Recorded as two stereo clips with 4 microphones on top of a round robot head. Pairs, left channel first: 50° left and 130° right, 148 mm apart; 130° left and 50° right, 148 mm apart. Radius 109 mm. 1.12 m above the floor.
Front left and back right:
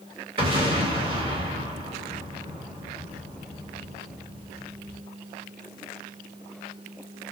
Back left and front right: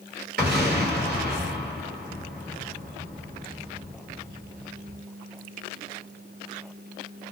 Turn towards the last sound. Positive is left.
turn(degrees=-70)